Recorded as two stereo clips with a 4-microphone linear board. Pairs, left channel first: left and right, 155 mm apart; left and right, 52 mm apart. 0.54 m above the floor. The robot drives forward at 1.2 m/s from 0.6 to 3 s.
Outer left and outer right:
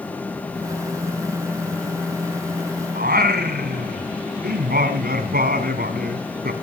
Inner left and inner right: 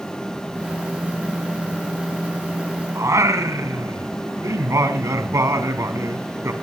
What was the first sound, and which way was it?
Singing, 80° right.